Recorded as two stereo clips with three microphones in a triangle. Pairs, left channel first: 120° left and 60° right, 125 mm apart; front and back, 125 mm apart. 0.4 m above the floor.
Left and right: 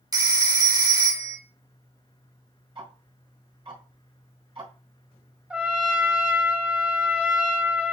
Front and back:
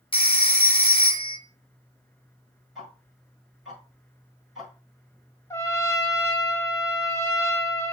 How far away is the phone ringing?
About 0.6 m.